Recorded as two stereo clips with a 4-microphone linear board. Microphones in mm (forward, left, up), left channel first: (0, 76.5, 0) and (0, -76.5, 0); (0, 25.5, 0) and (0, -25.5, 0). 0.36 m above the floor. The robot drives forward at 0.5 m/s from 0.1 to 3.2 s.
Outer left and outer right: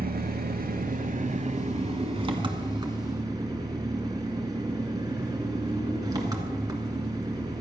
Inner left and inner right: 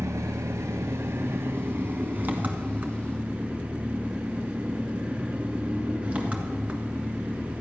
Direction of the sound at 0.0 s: 75° right (ahead or behind).